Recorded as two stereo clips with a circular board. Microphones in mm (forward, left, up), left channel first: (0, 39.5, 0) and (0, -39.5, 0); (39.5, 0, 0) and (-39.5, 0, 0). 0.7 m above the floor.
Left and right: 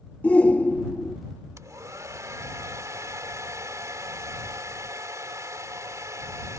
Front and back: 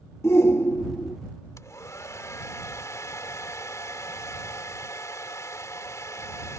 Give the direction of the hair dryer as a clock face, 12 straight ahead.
2 o'clock.